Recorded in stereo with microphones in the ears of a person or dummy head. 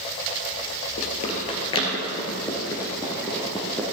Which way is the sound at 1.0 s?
40° left (ahead or behind).